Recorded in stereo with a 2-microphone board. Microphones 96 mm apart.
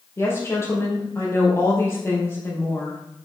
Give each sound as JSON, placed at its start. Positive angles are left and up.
{"t": 0.2, "sound": "a woman speaking", "side_deg": 30, "distance_m": 4.0}